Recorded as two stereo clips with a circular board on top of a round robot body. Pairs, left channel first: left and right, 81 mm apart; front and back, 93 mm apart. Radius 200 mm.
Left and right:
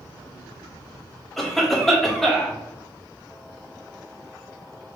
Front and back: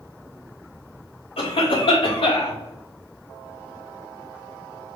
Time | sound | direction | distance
1.4 | a cough | 5° left | 3.5 m